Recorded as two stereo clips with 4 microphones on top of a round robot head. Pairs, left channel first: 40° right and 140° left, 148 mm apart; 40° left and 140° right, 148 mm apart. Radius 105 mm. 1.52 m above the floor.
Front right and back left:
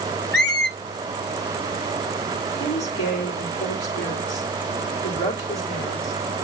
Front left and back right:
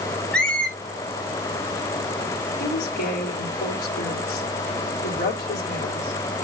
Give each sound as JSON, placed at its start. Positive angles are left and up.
{"t": 0.3, "sound": "a squeak", "azimuth_deg": -45, "distance_m": 0.8}
{"t": 2.6, "sound": "a woman speaking", "azimuth_deg": 5, "distance_m": 3.5}